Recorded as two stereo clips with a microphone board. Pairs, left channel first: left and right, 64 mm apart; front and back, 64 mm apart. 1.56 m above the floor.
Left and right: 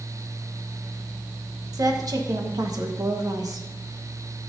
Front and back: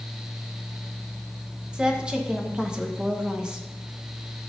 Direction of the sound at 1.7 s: 105° right.